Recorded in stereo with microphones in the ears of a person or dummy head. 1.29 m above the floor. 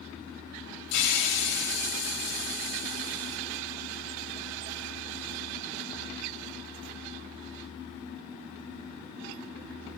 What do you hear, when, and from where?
0.9 s a hiss: 65° left (ahead or behind), 5.5 m